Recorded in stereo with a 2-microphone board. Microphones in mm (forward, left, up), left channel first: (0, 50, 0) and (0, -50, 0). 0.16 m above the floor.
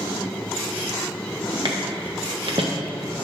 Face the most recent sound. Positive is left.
turn(degrees=-70)  # may be behind; listen again after turning